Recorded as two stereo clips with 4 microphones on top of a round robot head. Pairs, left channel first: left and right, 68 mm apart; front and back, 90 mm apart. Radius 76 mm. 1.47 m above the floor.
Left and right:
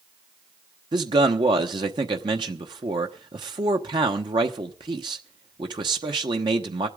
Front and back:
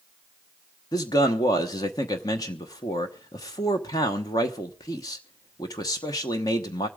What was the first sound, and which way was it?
A man speaking, 60° right.